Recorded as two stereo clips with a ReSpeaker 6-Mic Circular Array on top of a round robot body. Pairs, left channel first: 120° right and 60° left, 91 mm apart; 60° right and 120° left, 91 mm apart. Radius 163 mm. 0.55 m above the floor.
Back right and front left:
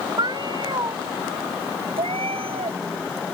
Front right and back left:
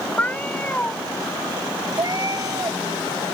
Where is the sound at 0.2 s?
15° left.